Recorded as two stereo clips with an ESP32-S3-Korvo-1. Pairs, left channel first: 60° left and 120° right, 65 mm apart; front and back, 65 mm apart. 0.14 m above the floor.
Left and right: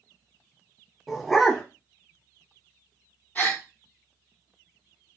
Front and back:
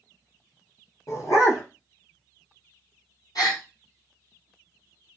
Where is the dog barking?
30° right, 1.3 m.